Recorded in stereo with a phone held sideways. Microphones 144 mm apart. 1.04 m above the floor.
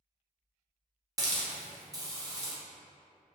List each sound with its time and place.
1.2 s a hiss: 25° right (ahead or behind), 0.7 m